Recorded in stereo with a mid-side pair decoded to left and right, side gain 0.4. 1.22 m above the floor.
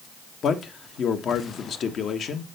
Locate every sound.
0.4 s a man speaking: 65° left, 1.2 m